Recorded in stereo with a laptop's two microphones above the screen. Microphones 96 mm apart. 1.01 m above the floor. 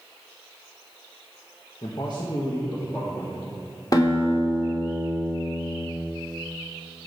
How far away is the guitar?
About 1.5 m.